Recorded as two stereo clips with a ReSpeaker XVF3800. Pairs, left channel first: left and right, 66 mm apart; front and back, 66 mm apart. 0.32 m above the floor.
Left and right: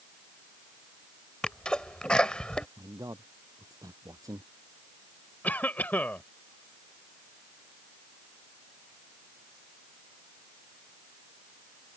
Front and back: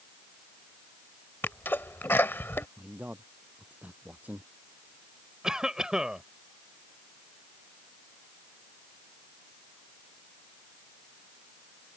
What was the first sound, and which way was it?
A sneeze, 25° left.